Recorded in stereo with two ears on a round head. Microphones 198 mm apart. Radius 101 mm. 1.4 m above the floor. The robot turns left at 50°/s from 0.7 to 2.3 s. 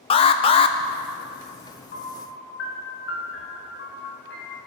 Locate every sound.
0.1 s an alarm: 25° left (ahead or behind), 0.5 m; by 0.8 s 20° left (ahead or behind), 0.5 m
1.9 s a piano: 40° left (ahead or behind), 3.5 m; by 4.6 s 55° left (ahead or behind), 3.5 m